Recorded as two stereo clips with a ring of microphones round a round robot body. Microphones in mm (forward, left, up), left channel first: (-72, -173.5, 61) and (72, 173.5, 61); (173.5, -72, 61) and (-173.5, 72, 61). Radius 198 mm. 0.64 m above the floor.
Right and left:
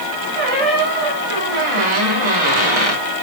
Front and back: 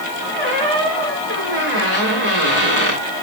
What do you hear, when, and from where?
0.3 s a squeak: 95° left, 3.5 m